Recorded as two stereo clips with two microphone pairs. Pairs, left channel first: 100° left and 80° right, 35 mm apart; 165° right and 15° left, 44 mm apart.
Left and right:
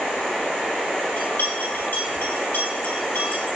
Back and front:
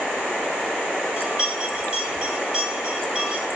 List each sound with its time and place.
1.2 s a bell: 90° left, 4.5 m